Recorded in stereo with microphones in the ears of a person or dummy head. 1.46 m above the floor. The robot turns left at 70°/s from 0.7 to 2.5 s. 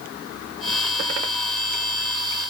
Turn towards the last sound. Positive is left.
No sound to turn to.